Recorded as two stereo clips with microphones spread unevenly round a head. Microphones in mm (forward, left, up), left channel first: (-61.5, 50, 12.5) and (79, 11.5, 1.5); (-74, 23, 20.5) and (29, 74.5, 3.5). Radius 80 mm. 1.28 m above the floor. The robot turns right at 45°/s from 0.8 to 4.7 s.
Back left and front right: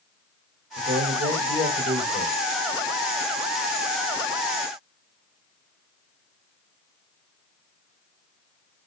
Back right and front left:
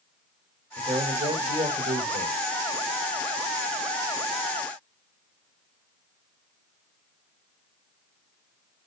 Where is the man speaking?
25° right, 7 m; by 2.4 s 45° left, 7 m.